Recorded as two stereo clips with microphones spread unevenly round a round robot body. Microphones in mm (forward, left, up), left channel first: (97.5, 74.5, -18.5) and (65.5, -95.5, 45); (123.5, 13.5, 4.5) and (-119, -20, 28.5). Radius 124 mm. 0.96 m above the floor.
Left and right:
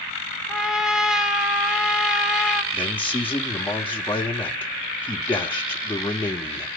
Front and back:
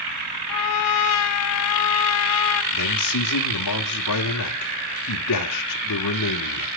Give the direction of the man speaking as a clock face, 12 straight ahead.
12 o'clock.